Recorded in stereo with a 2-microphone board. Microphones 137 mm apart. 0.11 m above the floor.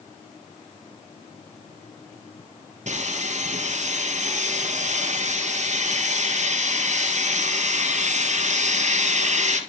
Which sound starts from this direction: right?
Sawing, at 2.9 s.